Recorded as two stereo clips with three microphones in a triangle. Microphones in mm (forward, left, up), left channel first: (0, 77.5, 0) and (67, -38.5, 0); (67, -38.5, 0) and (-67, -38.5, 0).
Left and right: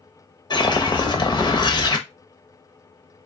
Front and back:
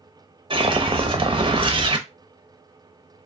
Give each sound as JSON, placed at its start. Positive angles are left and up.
{"t": 0.5, "sound": "a whoosh", "azimuth_deg": 160, "distance_m": 0.7}